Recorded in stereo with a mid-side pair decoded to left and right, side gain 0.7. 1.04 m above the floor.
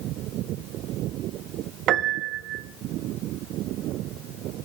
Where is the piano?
50° right, 0.9 m.